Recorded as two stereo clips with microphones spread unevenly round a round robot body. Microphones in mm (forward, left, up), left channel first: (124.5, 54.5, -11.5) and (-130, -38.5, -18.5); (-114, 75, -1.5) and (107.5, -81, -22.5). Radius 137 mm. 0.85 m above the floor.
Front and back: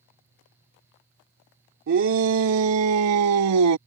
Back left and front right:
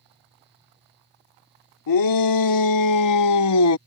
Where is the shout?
155° left; by 3.8 s 175° left.